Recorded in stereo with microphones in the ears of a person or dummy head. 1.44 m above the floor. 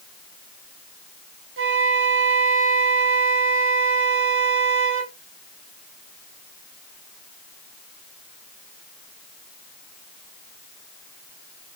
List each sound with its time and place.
1.6 s a flute: 60° right (ahead or behind), 0.6 m